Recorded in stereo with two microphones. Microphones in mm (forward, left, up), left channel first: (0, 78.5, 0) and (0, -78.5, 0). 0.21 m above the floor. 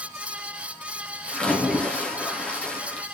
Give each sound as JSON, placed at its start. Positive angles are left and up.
{"t": 1.3, "sound": "a splash", "side_deg": 10, "distance_m": 1.9}